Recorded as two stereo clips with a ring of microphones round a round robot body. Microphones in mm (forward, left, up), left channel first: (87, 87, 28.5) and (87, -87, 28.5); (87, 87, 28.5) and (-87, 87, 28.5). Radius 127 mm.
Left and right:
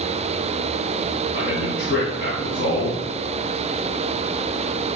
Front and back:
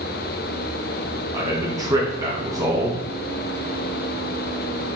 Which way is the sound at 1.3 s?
110° left.